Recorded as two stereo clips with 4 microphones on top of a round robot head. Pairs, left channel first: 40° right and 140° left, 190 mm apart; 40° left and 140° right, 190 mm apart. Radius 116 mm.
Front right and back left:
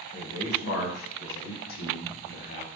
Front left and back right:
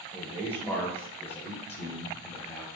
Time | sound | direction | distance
0.1 | a man speaking | 40° right | 4 m